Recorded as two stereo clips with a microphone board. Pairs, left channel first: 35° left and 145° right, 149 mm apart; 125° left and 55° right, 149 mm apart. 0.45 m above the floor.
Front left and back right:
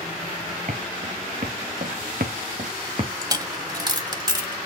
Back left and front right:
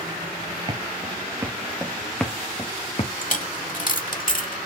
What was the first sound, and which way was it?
Footsteps, 115° right.